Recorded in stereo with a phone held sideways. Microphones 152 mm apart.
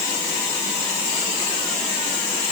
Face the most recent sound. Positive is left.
No sound to turn to.